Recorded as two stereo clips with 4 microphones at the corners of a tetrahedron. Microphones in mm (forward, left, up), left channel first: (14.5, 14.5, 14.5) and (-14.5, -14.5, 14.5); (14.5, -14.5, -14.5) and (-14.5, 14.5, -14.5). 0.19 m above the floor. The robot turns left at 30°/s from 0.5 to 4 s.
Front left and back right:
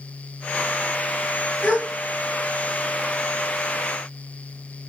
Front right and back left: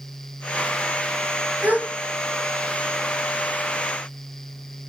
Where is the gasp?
110° left, 2 m; by 1.9 s 105° left, 2 m.